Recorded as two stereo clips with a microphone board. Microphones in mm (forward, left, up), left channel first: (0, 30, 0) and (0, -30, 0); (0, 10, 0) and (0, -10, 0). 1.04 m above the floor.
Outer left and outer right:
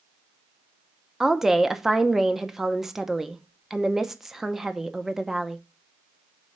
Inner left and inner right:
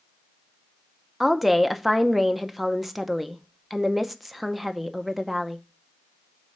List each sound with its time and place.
1.2 s a woman speaking: 5° right (ahead or behind), 0.7 m